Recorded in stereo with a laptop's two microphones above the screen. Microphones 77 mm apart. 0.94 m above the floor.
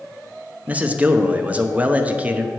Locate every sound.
0.7 s a man speaking: 20° right (ahead or behind), 0.8 m